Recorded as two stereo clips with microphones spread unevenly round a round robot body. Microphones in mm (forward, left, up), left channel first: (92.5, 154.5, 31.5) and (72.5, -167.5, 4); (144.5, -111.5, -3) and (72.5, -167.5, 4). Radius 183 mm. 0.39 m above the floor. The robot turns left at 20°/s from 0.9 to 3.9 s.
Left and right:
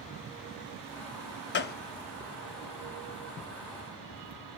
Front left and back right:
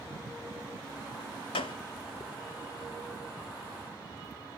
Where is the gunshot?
30° left, 0.6 m; by 1.8 s 25° left, 0.6 m.